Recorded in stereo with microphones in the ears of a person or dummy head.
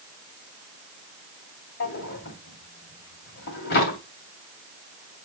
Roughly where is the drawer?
Left.